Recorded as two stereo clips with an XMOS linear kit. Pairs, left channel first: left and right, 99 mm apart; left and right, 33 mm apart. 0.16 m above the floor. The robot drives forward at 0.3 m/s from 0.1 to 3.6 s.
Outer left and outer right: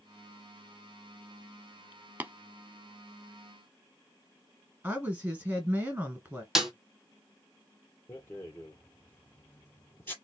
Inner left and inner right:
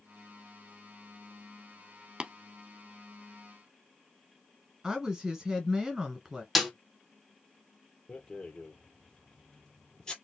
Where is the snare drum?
5° right (ahead or behind), 1.1 m.